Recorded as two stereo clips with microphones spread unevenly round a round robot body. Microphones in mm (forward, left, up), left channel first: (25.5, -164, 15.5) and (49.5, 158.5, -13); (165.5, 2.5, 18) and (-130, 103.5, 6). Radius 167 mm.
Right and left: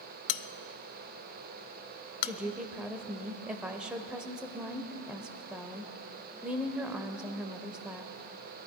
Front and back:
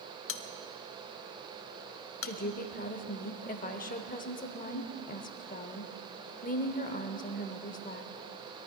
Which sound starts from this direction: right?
A bell, at 0.3 s.